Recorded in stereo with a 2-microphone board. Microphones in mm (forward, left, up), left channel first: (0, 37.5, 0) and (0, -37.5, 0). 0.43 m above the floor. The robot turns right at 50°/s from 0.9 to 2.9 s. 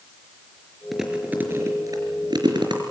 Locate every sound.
0.9 s chewing: centre (ahead or behind), 4.5 m; by 2.8 s 80° right, 4.5 m